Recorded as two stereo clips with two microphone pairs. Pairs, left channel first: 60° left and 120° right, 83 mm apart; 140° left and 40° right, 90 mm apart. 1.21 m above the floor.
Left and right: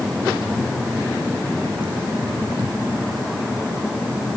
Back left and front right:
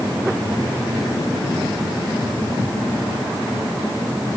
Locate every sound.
Only background noise.